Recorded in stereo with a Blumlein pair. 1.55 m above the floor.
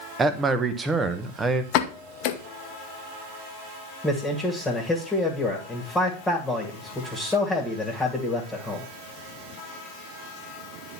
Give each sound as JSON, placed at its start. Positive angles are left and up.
{"t": 0.2, "sound": "a man speaking", "azimuth_deg": -15, "distance_m": 1.1}
{"t": 1.7, "sound": "a pop", "azimuth_deg": 40, "distance_m": 1.0}
{"t": 4.0, "sound": "a man speaking", "azimuth_deg": 5, "distance_m": 2.0}